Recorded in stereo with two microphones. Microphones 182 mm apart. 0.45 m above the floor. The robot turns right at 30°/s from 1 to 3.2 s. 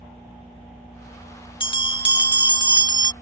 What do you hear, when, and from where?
1.6 s a bell: 30° left (ahead or behind); by 3.1 s 25° left (ahead or behind)